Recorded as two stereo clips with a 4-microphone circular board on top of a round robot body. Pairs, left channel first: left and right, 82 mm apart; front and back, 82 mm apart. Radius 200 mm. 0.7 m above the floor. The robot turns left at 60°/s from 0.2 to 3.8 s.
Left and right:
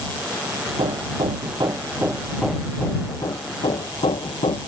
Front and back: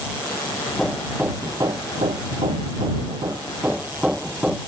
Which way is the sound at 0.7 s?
75° right.